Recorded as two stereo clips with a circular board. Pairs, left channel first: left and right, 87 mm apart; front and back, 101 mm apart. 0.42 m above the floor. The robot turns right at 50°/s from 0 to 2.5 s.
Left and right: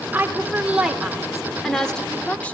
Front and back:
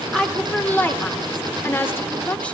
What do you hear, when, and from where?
0.1 s a woman speaking: 70° right, 1.1 m; by 2.6 s 50° left, 1.1 m